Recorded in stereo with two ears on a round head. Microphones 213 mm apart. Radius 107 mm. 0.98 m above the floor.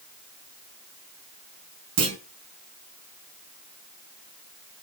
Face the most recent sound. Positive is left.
turn(degrees=-65)  # may be behind; listen again after turning